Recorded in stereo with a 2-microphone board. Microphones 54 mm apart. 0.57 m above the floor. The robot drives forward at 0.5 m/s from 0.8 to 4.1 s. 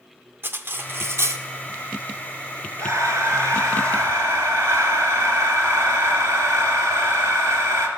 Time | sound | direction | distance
0.4 | cutlery clinking | 45° right (ahead or behind) | 0.7 m
2.8 | breathing | 65° right (ahead or behind) | 2 m